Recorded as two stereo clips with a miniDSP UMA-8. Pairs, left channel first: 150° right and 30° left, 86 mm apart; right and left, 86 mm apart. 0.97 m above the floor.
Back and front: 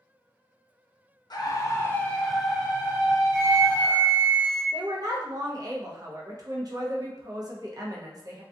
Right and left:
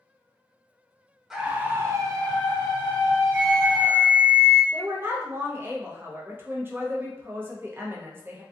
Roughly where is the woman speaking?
Ahead left.